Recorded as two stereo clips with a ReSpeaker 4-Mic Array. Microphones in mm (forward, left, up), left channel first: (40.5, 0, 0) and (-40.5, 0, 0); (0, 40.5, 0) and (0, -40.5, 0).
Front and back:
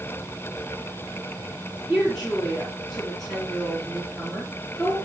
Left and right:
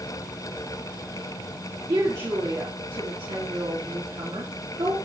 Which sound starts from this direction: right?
A woman speaking, at 1.9 s.